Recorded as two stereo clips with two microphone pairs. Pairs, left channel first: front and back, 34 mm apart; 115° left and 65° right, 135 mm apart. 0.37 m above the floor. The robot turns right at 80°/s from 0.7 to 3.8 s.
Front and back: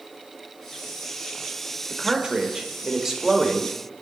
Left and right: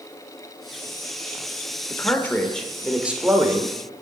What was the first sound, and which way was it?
A man speaking, 135° left.